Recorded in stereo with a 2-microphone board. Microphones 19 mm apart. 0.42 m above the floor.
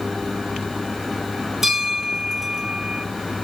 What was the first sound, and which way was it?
A bell, 15° right (ahead or behind).